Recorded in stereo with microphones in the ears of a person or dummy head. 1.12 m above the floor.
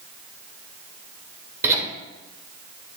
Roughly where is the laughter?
Centre.